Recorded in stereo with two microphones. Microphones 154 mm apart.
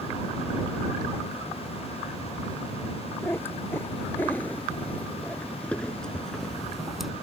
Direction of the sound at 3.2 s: 15° left (ahead or behind).